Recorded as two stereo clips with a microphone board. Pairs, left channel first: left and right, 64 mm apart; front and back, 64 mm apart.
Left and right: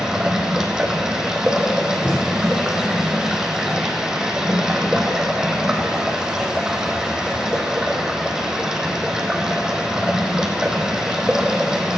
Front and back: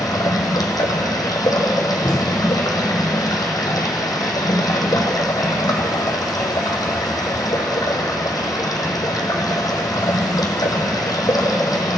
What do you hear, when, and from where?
0.0 s running water: 10° right, 1.6 m
2.0 s a thud: 45° left, 2.5 m